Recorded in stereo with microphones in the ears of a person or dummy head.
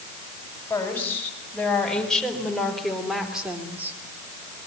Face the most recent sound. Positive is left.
turn(degrees=-15)  # may be behind; listen again after turning